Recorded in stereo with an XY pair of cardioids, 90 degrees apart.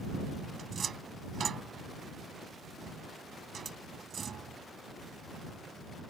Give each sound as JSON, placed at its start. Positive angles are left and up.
{"t": 0.6, "sound": "a cupboard door", "azimuth_deg": -50}